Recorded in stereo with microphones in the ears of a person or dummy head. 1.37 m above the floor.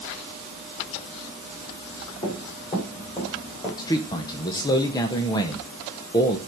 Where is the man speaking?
25° left (ahead or behind), 0.9 m.